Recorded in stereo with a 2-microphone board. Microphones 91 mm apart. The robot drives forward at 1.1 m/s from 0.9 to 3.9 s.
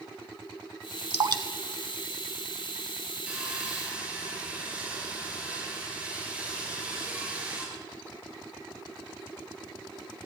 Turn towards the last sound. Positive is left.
turn(degrees=-15)  # may be behind; listen again after turning